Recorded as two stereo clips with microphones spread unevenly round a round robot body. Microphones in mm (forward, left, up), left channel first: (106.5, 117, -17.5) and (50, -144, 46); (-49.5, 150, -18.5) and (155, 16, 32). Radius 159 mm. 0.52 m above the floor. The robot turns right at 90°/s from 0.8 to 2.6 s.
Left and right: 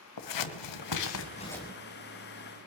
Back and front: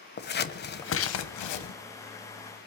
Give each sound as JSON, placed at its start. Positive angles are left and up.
{"t": 0.2, "sound": "scissors", "azimuth_deg": 95, "distance_m": 1.0}